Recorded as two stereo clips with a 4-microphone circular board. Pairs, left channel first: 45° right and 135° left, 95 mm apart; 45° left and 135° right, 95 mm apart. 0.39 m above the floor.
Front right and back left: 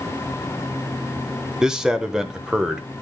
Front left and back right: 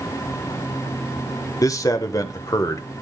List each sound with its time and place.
1.6 s a man speaking: 55° left, 0.9 m